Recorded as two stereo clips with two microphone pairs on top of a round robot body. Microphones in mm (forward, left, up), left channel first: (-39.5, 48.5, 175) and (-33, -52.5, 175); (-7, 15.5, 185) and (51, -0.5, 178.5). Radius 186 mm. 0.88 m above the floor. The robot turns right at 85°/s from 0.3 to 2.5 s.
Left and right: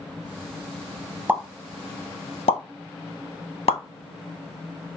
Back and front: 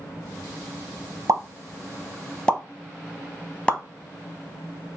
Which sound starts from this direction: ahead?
A pop, at 1.3 s.